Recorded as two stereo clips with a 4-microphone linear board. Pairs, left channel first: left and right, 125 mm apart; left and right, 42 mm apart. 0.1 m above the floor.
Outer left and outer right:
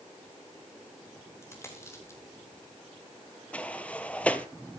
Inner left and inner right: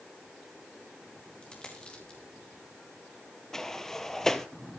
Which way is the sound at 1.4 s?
20° left (ahead or behind).